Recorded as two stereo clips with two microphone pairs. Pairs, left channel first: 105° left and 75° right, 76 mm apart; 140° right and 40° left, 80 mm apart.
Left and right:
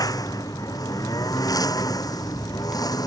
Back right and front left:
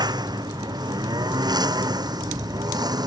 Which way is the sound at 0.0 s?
70° left.